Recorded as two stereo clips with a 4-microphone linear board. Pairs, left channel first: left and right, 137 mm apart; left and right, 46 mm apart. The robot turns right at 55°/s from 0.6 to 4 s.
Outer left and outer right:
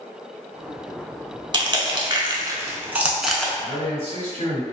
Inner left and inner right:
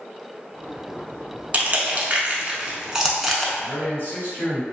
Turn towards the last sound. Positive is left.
turn(degrees=45)  # may be behind; listen again after turning